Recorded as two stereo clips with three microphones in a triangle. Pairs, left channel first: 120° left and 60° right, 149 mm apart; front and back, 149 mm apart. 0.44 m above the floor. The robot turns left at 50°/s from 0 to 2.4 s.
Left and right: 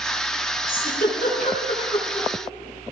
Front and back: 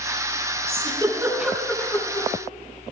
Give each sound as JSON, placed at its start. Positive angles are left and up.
{"t": 0.7, "sound": "a giggle", "azimuth_deg": 135, "distance_m": 4.5}